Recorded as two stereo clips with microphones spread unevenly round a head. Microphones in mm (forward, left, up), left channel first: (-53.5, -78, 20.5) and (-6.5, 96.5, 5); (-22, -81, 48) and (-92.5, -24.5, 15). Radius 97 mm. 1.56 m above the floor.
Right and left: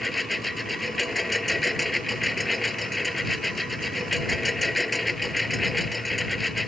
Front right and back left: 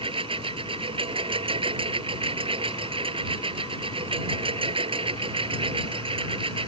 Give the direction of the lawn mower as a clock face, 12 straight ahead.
6 o'clock.